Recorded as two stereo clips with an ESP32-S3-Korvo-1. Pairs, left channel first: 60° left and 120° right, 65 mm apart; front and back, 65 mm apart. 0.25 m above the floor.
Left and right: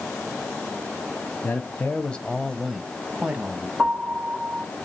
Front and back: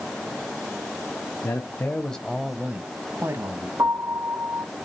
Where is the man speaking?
20° left, 1.3 m; by 3.7 s straight behind, 1.6 m.